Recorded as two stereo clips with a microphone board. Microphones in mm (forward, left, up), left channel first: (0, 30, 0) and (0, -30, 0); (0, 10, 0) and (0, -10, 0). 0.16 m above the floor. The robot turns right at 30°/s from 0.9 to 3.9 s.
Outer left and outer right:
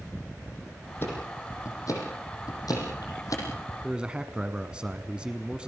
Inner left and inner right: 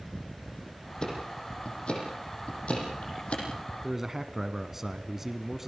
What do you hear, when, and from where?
1.0 s ticking: 40° left (ahead or behind), 6.5 m; by 3.4 s 65° left (ahead or behind), 6.5 m
3.8 s a man speaking: 15° right (ahead or behind), 1.2 m